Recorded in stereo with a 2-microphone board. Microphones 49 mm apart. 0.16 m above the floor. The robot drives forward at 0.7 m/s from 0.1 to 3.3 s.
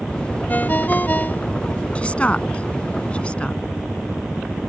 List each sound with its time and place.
0.5 s a ringtone: 35° left (ahead or behind)
1.9 s a woman speaking: 25° left (ahead or behind)